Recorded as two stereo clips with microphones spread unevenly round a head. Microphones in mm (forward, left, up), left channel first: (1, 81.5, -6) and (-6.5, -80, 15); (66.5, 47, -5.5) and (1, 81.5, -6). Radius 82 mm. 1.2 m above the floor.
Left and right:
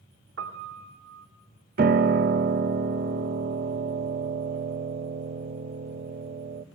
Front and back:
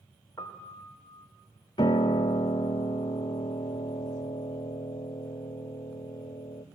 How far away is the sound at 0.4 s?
About 2 m.